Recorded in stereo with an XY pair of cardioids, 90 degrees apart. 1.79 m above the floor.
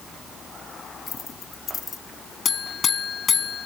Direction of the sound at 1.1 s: 50° left.